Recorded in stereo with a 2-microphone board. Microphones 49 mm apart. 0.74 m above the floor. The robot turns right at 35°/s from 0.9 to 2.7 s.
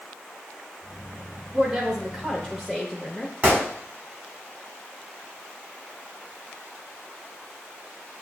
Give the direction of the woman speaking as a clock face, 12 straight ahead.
1 o'clock.